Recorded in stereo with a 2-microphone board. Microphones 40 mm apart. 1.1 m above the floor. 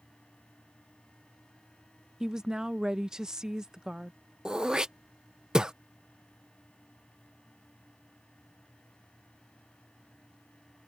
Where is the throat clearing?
20° right (ahead or behind).